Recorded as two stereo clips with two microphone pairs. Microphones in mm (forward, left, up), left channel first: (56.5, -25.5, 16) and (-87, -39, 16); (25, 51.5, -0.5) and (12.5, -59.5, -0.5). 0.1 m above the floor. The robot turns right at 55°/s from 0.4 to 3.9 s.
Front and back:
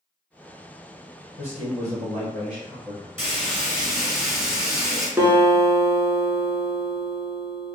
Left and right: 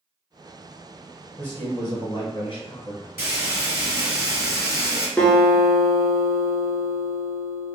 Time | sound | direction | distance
1.4 | a man speaking | 10° left | 1.7 m
3.2 | frying | 135° right | 1.3 m
5.2 | a guitar | 145° left | 0.6 m